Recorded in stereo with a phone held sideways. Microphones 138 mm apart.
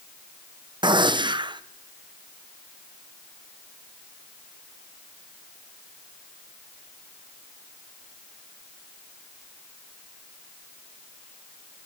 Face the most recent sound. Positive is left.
turn(degrees=-35)  # may be behind; listen again after turning